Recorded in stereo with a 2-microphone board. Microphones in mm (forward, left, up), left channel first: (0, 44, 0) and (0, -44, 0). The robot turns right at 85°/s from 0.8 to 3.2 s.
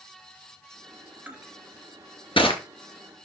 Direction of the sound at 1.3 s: 20° right (ahead or behind).